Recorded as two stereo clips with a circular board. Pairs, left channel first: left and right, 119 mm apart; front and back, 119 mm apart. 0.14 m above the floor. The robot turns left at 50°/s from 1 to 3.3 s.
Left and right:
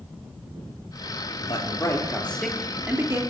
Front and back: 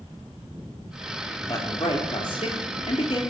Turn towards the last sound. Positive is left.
turn(degrees=-40)